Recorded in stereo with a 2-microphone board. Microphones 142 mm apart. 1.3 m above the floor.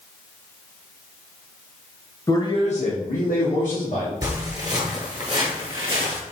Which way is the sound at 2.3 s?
25° left (ahead or behind).